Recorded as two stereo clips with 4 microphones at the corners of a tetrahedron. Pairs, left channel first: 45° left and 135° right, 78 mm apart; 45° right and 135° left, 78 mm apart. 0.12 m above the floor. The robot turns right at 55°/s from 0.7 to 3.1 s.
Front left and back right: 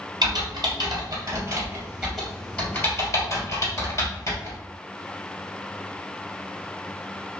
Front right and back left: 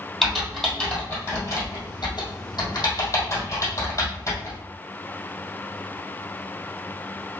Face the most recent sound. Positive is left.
turn(degrees=0)